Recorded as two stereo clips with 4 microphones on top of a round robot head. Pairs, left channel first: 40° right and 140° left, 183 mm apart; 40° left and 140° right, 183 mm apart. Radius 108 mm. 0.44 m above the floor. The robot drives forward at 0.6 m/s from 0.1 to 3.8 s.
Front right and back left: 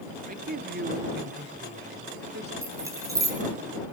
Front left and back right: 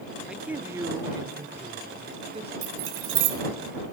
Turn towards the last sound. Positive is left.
turn(degrees=-150)